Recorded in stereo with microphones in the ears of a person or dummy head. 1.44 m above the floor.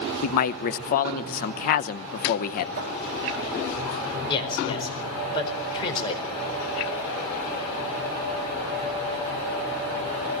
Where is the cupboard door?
55° right (ahead or behind), 2.5 m.